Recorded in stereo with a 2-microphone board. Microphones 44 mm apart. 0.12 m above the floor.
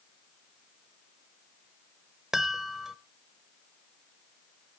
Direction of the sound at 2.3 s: 10° right (ahead or behind).